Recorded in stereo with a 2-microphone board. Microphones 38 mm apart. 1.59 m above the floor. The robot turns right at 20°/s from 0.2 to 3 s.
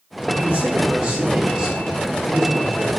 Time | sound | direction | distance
0.3 | a man speaking | 40° right | 3.5 m